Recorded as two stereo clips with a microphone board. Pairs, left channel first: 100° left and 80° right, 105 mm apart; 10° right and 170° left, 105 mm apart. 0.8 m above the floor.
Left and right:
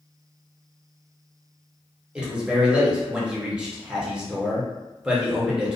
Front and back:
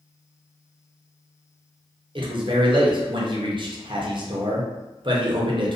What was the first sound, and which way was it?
A man speaking, 160° right.